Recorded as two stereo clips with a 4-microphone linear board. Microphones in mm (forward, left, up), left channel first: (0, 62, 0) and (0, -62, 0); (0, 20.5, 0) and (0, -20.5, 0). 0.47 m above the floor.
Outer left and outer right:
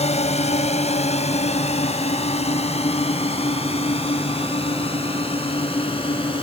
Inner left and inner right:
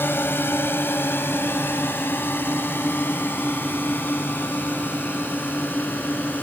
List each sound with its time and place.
0.0 s a drone: 60° left (ahead or behind); by 6.4 s 50° left (ahead or behind)